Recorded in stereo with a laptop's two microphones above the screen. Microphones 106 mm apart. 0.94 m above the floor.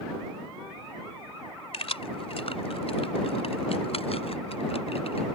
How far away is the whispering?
I don't hear whispering.